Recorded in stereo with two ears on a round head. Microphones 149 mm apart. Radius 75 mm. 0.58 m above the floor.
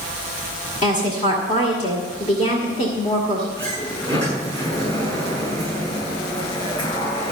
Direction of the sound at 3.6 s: 25° left (ahead or behind).